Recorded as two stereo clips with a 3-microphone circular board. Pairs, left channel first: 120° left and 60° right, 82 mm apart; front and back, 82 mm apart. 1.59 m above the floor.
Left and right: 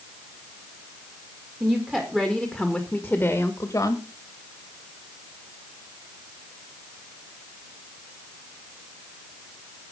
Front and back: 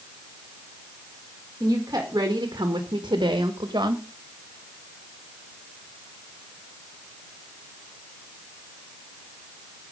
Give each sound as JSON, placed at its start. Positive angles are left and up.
{"t": 1.6, "sound": "a woman speaking", "azimuth_deg": -130, "distance_m": 2.5}